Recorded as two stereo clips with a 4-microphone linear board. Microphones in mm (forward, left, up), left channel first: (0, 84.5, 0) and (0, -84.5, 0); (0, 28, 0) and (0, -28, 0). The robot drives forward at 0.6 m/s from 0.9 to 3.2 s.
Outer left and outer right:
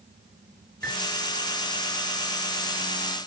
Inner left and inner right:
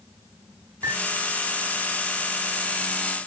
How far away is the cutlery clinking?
About 10 m.